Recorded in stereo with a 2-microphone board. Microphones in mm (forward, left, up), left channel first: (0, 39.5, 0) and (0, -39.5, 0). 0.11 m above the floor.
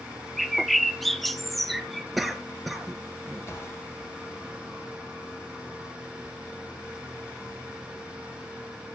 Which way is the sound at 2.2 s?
Centre (ahead or behind).